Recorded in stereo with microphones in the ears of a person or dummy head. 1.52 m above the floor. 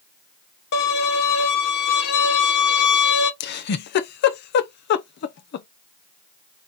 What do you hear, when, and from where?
0.7 s a violin: 55° left (ahead or behind), 1.3 m
3.4 s a giggle: 60° left (ahead or behind), 0.5 m